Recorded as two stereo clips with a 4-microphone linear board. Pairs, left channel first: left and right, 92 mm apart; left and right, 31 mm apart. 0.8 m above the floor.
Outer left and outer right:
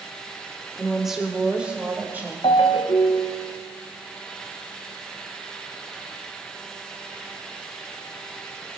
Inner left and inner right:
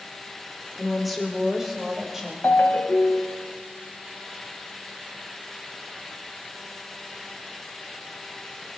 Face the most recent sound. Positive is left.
turn(degrees=80)